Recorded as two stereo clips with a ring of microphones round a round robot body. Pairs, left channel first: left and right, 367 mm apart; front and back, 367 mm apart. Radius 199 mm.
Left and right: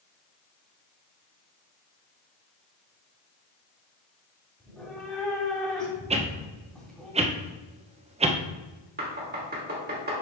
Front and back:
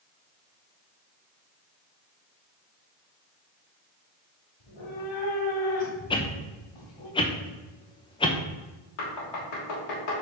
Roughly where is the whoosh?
Ahead right.